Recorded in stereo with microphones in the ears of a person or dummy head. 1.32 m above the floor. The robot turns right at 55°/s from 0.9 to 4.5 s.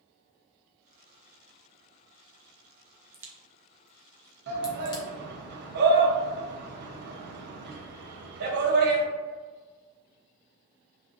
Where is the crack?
15° right (ahead or behind), 0.5 m; by 5.0 s 20° left (ahead or behind), 0.5 m.